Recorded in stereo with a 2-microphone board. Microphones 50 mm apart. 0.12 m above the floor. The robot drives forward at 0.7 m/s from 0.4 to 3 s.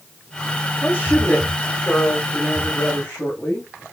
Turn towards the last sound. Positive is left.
turn(degrees=25)  # may be behind; listen again after turning